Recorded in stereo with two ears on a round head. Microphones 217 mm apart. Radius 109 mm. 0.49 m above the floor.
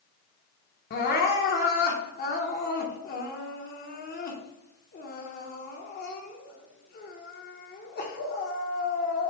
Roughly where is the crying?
Left.